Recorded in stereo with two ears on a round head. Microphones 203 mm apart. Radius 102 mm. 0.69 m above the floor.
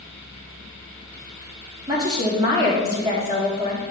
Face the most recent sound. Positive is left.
turn(degrees=-20)  # may be behind; listen again after turning